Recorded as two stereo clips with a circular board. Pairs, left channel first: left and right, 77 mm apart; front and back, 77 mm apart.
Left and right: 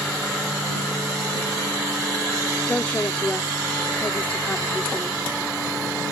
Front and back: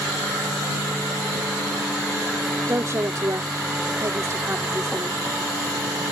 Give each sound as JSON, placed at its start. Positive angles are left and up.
{"t": 2.7, "sound": "a woman speaking", "azimuth_deg": 155}